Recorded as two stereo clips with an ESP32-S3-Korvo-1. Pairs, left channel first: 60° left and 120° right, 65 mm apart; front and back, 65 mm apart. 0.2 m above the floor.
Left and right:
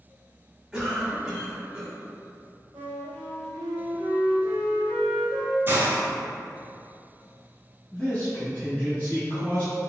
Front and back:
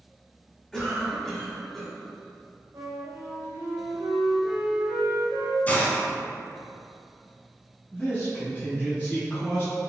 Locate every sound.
0.7 s a cough: 80° right, 1.1 m
2.7 s a flute: 150° right, 1.8 m
5.7 s a hiss: 65° right, 0.7 m
7.9 s a man speaking: 15° left, 1.0 m